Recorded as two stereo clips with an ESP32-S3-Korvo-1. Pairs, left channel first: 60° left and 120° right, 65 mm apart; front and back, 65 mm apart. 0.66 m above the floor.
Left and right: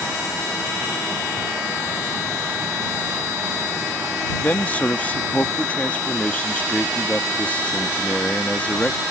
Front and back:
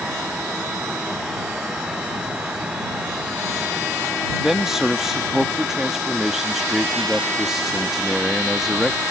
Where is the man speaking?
100° left.